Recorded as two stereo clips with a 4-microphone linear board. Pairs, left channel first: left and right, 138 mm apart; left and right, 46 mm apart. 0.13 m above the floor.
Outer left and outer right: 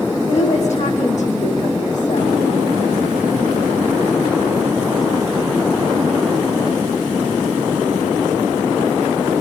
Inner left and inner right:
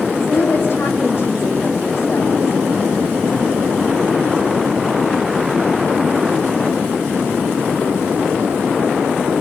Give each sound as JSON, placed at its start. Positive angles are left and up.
{"t": 0.3, "sound": "a woman speaking", "side_deg": 55, "distance_m": 7.5}